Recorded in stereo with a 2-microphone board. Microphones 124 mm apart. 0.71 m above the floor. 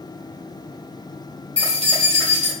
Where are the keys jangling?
60° right (ahead or behind), 1.9 m.